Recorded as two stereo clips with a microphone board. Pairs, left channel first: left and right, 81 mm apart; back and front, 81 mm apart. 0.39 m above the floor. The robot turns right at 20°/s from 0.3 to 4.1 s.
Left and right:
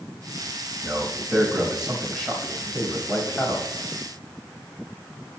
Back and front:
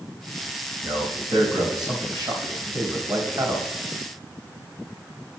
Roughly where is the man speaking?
Ahead.